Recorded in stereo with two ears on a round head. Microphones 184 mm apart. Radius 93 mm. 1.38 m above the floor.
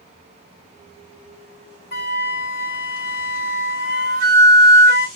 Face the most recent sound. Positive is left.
turn(degrees=40)  # may be behind; listen again after turning